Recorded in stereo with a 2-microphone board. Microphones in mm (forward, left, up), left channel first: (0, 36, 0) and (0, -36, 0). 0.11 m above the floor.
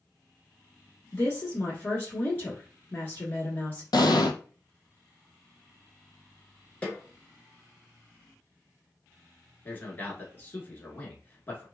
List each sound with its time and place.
1.1 s a woman speaking: 30° left (ahead or behind), 1.3 m
3.9 s an explosion: 80° left, 0.6 m
6.8 s a snare drum: 20° left (ahead or behind), 1.1 m
9.7 s a man speaking: 30° left (ahead or behind), 1.2 m